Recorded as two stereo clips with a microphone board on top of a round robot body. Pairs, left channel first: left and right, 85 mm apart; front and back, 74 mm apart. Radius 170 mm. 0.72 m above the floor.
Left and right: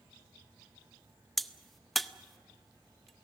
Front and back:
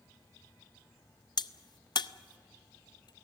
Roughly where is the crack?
Ahead.